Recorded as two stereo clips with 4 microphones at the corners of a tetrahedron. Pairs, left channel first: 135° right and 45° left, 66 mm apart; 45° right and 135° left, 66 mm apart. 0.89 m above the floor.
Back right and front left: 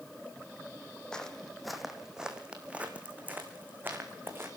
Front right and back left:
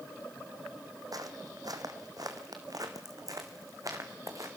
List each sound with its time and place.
1.1 s footsteps: 150° left, 2 m; by 4.5 s 100° left, 3.5 m